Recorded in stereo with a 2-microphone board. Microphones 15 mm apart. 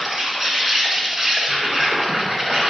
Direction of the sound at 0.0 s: 30° right (ahead or behind).